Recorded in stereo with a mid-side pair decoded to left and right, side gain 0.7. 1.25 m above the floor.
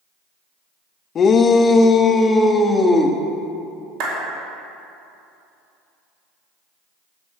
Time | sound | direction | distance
1.1 | a shout | 35° left | 1.0 m
4.0 | a clap | 70° right | 4.5 m